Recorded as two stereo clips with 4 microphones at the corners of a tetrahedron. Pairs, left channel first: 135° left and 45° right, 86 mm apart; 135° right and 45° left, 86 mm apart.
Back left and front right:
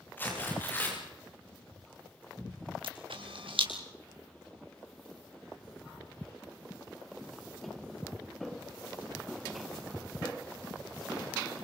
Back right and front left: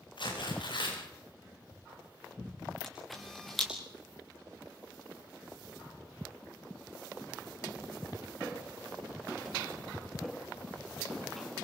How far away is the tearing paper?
About 9.5 m.